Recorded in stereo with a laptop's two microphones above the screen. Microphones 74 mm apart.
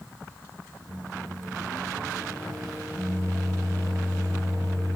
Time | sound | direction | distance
0.9 | a microwave | 50° right (ahead or behind) | 1.1 m